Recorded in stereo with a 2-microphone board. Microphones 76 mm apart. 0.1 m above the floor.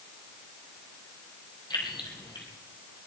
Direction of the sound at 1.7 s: 65° left (ahead or behind).